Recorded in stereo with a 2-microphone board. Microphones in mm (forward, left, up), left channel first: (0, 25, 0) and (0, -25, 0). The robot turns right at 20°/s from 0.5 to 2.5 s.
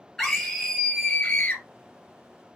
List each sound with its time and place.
0.2 s a scream: 5° left (ahead or behind), 2.5 m; by 1.6 s 25° left (ahead or behind), 2.5 m